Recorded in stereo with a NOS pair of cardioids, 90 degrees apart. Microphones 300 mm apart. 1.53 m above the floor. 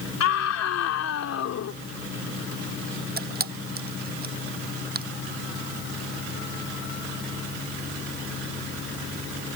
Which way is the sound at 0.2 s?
60° left.